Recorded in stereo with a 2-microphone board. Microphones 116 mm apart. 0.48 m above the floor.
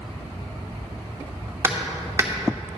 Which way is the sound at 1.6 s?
25° right (ahead or behind).